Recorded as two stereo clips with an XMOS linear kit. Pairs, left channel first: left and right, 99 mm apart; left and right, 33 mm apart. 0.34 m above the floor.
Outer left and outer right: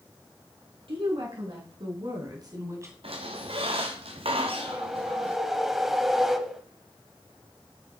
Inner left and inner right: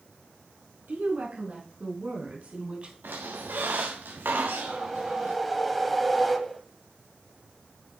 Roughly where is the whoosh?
Centre.